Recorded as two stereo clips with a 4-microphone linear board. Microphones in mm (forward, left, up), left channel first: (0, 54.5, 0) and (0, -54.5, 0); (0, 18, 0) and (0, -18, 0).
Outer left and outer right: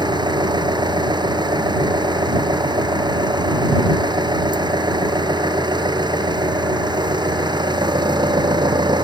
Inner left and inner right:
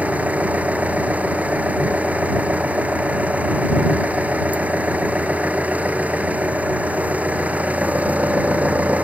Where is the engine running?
45° right (ahead or behind).